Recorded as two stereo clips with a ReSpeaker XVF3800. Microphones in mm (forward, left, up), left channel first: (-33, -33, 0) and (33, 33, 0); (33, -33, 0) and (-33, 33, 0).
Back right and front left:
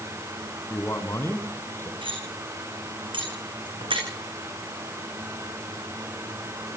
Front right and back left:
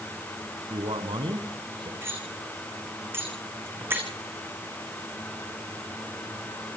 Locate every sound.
0.7 s a man speaking: 160° left, 5 m
2.0 s cutlery clinking: 70° left, 6.5 m